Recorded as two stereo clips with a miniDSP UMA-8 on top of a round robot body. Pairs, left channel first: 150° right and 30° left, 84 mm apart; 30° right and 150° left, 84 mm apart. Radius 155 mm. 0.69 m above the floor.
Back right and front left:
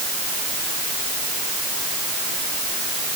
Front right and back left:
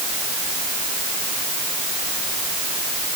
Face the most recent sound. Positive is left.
No sound to turn to.